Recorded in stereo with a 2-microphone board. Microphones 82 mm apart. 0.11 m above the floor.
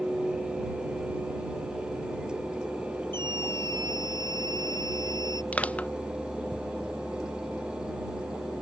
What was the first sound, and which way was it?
A scream, 65° right (ahead or behind).